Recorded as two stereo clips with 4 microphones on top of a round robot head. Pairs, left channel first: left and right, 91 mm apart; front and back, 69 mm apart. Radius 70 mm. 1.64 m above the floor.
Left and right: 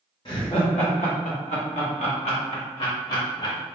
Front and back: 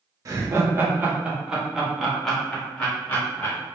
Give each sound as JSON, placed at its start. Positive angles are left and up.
{"t": 0.2, "sound": "laughter", "azimuth_deg": 145, "distance_m": 1.0}